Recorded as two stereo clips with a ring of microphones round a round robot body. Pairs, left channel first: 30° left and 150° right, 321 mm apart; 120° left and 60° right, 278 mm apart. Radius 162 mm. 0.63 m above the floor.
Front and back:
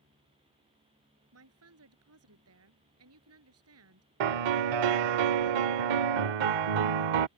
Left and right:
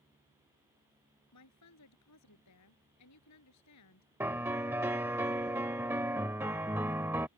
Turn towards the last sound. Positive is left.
turn(degrees=-145)